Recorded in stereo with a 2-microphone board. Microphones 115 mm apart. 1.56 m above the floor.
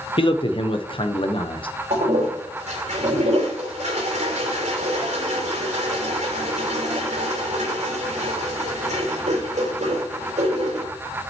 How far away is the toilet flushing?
About 3 m.